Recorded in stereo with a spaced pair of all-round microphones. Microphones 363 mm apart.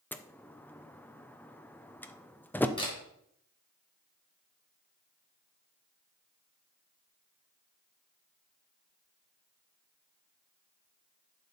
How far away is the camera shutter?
About 4.5 m.